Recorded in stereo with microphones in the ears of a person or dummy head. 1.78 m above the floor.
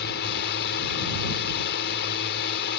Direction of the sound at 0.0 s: 55° left (ahead or behind).